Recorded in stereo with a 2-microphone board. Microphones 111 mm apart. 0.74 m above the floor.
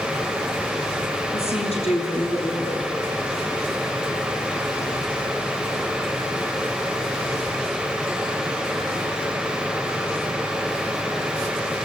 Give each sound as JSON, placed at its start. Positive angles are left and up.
{"t": 1.3, "sound": "a woman speaking", "side_deg": 60, "distance_m": 8.0}